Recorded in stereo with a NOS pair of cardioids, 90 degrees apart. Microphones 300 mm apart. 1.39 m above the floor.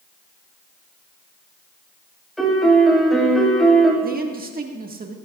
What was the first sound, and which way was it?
A piano, straight ahead.